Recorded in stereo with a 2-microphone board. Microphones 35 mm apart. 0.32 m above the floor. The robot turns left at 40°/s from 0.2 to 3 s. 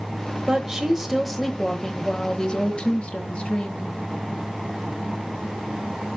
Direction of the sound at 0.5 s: 145° right.